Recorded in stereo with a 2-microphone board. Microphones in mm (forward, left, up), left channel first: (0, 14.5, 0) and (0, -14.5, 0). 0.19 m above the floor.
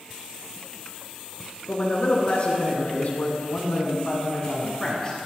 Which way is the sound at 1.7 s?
40° left (ahead or behind).